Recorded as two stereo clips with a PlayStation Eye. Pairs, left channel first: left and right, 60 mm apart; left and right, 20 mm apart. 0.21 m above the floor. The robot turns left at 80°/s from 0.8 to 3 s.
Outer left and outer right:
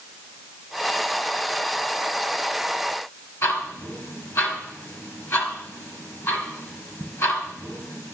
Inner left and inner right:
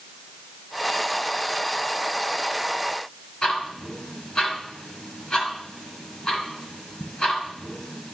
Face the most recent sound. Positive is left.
turn(degrees=50)  # may be behind; listen again after turning